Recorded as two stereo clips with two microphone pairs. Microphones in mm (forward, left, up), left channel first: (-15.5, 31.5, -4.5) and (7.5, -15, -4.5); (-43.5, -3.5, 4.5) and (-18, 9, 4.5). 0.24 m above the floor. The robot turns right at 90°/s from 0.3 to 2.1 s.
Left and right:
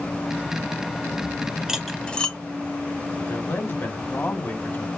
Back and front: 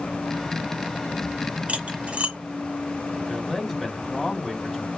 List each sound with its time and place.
1.7 s cutlery clinking: 15° left, 1.0 m; by 2.4 s 50° left, 1.0 m
3.2 s a man speaking: 120° left, 2 m